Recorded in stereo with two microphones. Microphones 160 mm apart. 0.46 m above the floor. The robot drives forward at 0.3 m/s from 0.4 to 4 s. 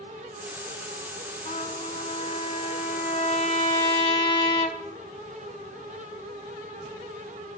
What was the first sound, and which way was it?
A trumpet, 45° left (ahead or behind).